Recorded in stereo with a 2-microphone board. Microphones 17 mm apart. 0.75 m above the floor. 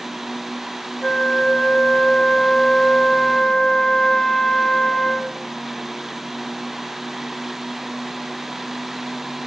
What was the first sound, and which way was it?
A flute, 25° left (ahead or behind).